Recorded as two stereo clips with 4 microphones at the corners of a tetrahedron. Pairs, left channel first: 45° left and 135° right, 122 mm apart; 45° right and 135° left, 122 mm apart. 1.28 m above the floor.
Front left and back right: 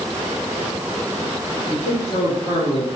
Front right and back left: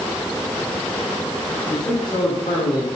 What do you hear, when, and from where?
1.7 s a man speaking: 10° left, 2.5 m; by 2.9 s 5° right, 3 m